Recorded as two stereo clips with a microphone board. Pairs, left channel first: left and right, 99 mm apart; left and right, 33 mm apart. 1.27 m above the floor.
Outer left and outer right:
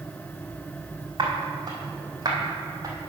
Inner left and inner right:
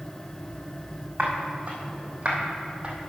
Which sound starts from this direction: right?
Footsteps, at 1.2 s.